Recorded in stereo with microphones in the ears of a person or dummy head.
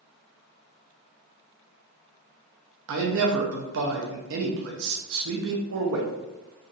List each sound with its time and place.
2.9 s a man speaking: 70° right (ahead or behind), 0.7 m